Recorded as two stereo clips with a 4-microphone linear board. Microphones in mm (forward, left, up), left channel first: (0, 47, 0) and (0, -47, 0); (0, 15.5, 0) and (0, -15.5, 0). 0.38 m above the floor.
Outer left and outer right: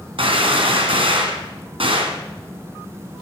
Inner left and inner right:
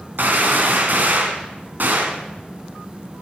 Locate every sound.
0.2 s a gunshot: 75° right (ahead or behind), 1.9 m